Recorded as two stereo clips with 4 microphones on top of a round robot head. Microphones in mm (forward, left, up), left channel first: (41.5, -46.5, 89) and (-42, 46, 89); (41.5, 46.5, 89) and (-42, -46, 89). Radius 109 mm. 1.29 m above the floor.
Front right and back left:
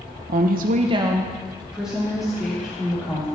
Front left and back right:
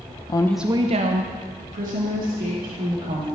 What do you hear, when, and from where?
0.3 s a woman speaking: 105° left, 0.7 m; by 3.3 s 135° right, 4 m